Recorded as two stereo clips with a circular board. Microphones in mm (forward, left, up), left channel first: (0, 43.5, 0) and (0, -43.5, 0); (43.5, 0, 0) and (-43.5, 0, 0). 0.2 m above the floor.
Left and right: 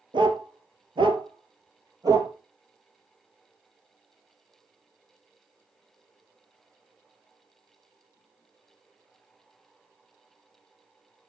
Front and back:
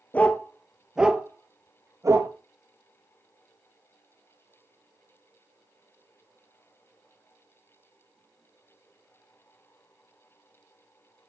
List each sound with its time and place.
0.1 s a dog barking: 70° right, 1.3 m; by 2.3 s 135° right, 1.6 m